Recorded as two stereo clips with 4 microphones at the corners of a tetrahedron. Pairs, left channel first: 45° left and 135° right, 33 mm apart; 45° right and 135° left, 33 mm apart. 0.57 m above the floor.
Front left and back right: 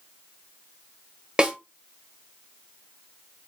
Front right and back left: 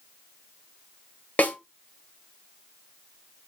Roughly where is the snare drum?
Right.